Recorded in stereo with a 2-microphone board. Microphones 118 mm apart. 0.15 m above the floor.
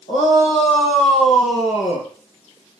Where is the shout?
65° left (ahead or behind), 6.5 m; by 2.1 s 60° left (ahead or behind), 3.5 m.